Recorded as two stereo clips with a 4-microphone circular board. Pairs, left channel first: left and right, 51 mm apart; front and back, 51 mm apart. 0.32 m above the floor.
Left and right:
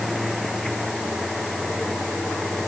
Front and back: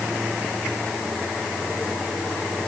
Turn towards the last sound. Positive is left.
No sound to turn to.